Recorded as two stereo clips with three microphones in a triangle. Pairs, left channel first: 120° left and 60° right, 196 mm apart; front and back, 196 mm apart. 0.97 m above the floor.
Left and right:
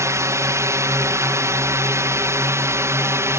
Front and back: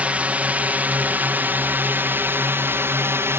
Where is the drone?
110° right; by 3.4 s 120° right.